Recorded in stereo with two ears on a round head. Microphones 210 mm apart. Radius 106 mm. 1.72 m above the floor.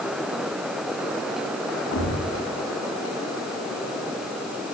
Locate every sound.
1.9 s a thud: 50° left (ahead or behind), 5.5 m